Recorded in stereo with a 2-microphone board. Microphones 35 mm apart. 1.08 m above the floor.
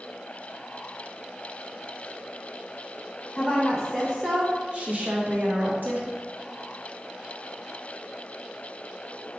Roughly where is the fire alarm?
No fire alarm in this recording.